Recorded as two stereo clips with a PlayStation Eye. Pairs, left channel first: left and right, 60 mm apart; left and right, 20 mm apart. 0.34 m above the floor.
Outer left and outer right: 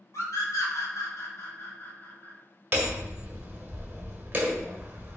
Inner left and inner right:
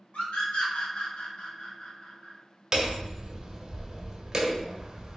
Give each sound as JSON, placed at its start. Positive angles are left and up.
{"t": 0.1, "sound": "a scream", "side_deg": 60, "distance_m": 3.0}
{"t": 2.7, "sound": "hammering", "side_deg": -30, "distance_m": 1.4}